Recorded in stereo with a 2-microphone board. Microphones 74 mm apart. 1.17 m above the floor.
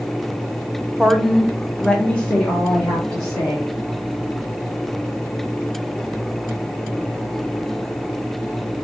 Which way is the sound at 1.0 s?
10° right (ahead or behind).